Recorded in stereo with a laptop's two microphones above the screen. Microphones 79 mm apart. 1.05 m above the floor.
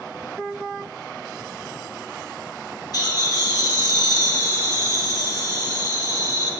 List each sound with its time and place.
2.9 s laughter: 50° left (ahead or behind), 1.9 m